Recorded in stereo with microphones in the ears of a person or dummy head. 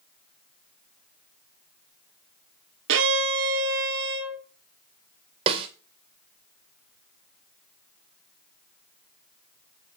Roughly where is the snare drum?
Right.